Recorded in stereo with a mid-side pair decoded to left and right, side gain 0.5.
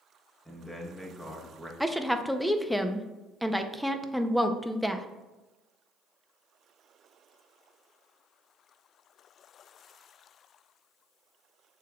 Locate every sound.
0.5 s a man speaking: 5° left, 1.2 m
1.8 s a woman speaking: straight ahead, 0.5 m